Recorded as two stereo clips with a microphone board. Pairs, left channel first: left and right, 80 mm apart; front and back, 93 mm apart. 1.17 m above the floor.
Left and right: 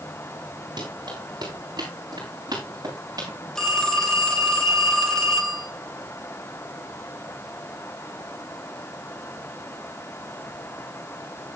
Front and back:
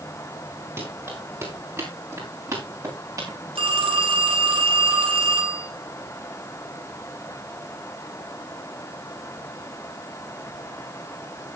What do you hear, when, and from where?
0.8 s running footsteps: 120° right, 8.5 m; by 3.4 s 130° right, 7.5 m
3.5 s a phone ringing: 175° left, 3 m